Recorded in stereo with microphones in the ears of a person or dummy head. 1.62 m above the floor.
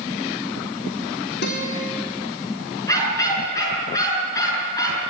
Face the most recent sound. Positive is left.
turn(degrees=15)  # may be behind; listen again after turning